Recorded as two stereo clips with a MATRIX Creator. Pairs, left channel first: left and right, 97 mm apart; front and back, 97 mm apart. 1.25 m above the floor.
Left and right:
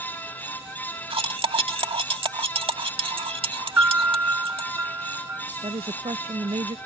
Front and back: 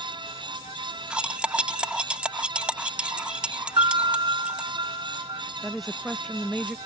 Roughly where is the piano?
Behind right.